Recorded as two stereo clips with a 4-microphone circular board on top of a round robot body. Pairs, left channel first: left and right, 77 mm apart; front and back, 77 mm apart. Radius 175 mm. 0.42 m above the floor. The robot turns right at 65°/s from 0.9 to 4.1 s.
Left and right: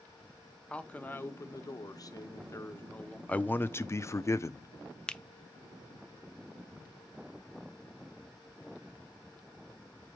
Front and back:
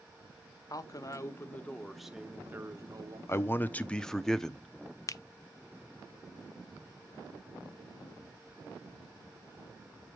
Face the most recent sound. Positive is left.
turn(degrees=15)